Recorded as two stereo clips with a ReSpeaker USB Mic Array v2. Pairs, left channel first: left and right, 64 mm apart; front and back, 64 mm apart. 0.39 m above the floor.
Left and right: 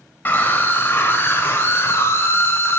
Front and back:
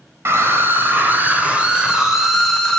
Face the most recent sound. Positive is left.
turn(degrees=75)